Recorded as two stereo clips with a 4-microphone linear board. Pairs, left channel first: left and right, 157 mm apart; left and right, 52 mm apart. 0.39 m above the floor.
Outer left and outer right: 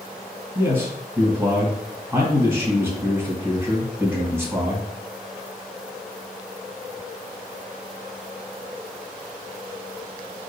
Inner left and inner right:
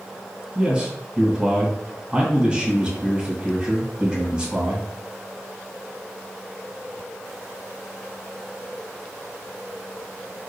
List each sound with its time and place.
0.6 s a man speaking: 20° right (ahead or behind), 2 m